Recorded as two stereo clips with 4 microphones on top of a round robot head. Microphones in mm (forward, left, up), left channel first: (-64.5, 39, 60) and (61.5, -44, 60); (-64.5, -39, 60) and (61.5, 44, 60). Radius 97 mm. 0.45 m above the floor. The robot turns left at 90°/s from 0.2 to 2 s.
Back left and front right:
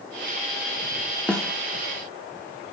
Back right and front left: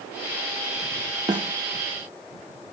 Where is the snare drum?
70° left, 1.0 m; by 1.5 s 50° left, 1.0 m.